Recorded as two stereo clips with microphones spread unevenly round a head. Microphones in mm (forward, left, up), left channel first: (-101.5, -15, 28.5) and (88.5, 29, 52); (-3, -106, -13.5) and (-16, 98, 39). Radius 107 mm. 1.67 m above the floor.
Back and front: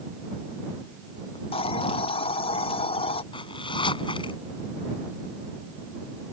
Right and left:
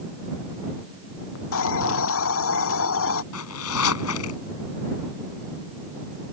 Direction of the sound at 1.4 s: 105° right.